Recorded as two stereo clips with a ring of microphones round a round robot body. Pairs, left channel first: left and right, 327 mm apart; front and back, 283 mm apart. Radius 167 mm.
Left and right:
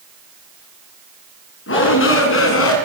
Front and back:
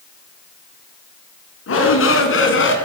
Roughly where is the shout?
Ahead left.